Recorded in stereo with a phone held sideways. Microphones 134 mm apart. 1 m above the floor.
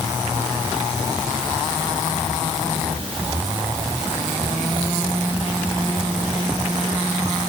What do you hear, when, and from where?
Only background noise.